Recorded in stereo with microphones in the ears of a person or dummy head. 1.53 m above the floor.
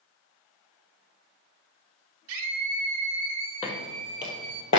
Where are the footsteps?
30° left (ahead or behind), 1.9 m; by 4.8 s 10° left (ahead or behind), 1.5 m.